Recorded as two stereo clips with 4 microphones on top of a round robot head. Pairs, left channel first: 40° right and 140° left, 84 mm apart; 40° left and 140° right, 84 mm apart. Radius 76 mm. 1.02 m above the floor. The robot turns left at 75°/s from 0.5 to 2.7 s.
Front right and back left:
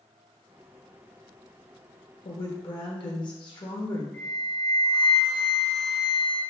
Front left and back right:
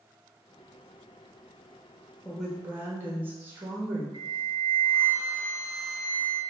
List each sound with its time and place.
2.2 s a woman speaking: 35° right, 1.1 m; by 4.0 s 70° right, 1.1 m
4.1 s a flute: 95° right, 1.3 m